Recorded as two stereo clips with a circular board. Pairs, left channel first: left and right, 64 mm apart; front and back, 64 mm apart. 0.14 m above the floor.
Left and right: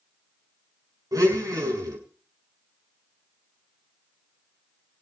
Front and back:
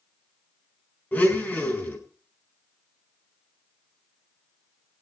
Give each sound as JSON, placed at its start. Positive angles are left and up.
{"t": 1.1, "sound": "a blender", "azimuth_deg": -65, "distance_m": 5.0}